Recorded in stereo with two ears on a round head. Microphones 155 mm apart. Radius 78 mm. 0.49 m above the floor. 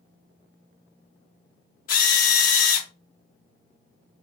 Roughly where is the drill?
Left.